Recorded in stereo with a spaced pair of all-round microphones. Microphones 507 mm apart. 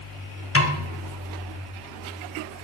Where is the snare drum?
25° left (ahead or behind), 0.8 m.